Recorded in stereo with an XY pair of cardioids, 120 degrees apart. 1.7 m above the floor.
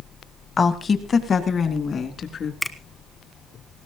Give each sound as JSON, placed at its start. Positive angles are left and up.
{"t": 0.6, "sound": "a woman speaking", "azimuth_deg": 30, "distance_m": 1.6}
{"t": 2.6, "sound": "a finger snap", "azimuth_deg": 10, "distance_m": 1.2}